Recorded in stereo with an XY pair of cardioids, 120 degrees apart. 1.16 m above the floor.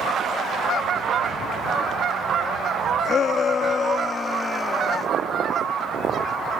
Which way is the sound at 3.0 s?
50° left.